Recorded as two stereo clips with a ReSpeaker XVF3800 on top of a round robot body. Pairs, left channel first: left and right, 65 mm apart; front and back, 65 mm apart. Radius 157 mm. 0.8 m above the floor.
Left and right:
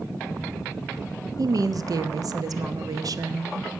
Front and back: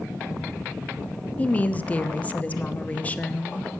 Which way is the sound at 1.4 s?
70° right.